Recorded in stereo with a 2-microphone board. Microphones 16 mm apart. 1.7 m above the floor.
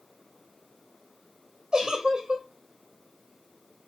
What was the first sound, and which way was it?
A giggle, 50° right (ahead or behind).